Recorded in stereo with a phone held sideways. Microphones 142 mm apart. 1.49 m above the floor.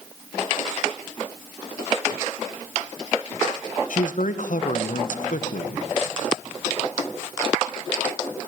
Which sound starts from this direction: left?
A man speaking, at 3.9 s.